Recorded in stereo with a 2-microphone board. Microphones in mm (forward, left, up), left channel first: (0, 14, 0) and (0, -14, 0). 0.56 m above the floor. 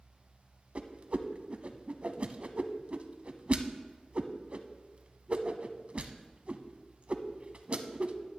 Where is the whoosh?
45° right (ahead or behind), 0.6 m.